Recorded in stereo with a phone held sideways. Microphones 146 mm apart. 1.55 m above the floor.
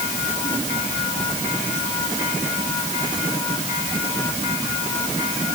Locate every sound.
Only background noise.